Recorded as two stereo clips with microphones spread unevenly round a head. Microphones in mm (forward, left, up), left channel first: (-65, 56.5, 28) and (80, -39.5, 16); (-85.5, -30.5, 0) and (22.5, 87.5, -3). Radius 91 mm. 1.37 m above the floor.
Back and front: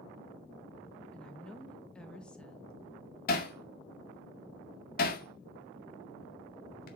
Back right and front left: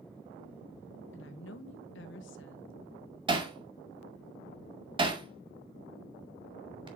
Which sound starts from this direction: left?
Hammering, at 3.3 s.